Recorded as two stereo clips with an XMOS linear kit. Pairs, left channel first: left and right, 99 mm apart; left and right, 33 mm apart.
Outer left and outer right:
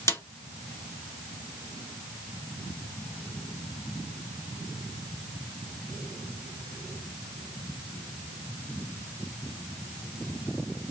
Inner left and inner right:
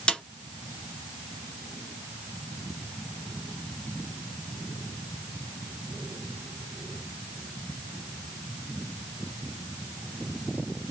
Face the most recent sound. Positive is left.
turn(degrees=30)  # may be behind; listen again after turning